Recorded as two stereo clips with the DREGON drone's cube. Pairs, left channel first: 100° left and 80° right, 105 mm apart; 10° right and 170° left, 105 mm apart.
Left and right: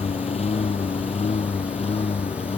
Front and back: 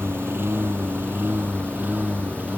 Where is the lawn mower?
100° left; by 2.6 s 95° left.